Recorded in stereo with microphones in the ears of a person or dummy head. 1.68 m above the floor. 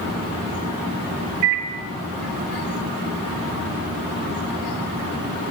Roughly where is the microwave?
Right.